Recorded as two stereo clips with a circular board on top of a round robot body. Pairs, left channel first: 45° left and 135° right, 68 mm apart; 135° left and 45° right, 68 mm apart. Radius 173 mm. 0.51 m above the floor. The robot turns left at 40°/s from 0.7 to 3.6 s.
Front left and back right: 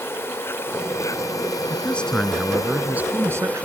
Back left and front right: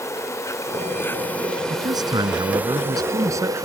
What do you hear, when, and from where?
0.0 s an insect: 95° left; by 3.7 s 20° right
1.7 s a man speaking: 20° right; by 3.7 s 95° right